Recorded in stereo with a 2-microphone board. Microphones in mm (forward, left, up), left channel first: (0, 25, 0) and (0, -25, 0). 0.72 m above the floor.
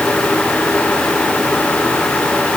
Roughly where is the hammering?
I don't hear hammering.